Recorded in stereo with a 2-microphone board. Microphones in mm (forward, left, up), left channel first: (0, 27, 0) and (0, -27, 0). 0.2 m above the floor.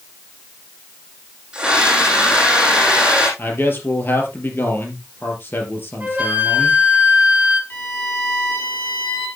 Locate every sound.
1.5 s a scream: 20° right (ahead or behind), 7.5 m
3.4 s a man speaking: 40° left (ahead or behind), 3.5 m
6.0 s a flute: 25° right (ahead or behind), 3.5 m
7.7 s a violin: 40° left (ahead or behind), 5.5 m